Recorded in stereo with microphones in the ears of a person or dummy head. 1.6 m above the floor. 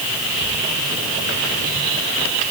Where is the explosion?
I don't hear an explosion.